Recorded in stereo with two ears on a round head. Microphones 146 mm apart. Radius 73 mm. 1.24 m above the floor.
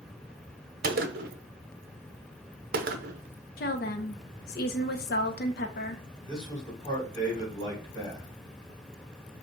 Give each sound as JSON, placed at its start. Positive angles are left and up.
{"t": 0.8, "sound": "a gunshot", "side_deg": -60, "distance_m": 0.6}
{"t": 3.6, "sound": "a woman speaking", "side_deg": 60, "distance_m": 0.9}
{"t": 6.2, "sound": "a man speaking", "side_deg": 30, "distance_m": 3.5}